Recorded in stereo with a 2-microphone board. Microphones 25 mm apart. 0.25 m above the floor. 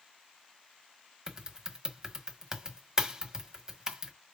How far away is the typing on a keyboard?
About 1.4 m.